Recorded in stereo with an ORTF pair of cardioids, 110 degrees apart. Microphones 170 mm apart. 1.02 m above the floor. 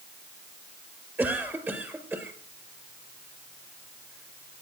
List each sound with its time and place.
1.2 s a cough: 15° right, 4.5 m